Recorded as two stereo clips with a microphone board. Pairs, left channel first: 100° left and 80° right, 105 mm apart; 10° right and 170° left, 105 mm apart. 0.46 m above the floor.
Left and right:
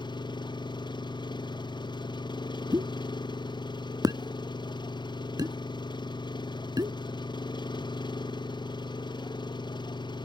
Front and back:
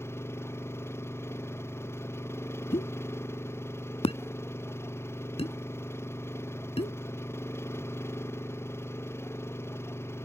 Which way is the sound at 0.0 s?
55° left.